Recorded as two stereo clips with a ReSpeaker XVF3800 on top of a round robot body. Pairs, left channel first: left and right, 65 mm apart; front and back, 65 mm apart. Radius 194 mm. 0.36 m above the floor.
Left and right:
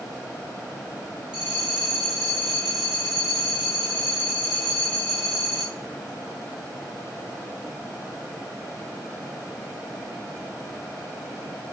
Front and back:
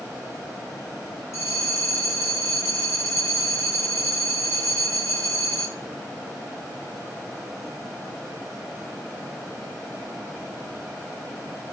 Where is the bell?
15° right, 1.4 m.